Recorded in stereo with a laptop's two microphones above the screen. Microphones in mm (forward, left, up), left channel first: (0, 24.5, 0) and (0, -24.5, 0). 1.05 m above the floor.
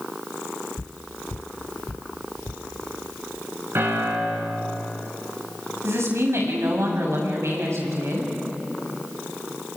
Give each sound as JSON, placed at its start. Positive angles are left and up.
{"t": 0.8, "sound": "footsteps", "side_deg": 30, "distance_m": 1.1}
{"t": 3.8, "sound": "a piano", "side_deg": -55, "distance_m": 6.5}
{"t": 5.8, "sound": "a woman speaking", "side_deg": -70, "distance_m": 7.0}